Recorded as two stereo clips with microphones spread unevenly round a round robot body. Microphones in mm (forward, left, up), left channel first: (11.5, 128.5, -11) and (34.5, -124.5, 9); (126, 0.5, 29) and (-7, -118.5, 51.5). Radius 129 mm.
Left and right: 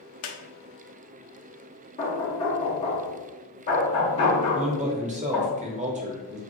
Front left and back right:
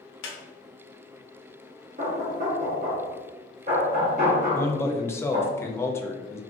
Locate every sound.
0.2 s a squeak: 65° left, 0.6 m
2.0 s knocking: 165° left, 0.8 m
4.5 s a man speaking: 25° right, 0.6 m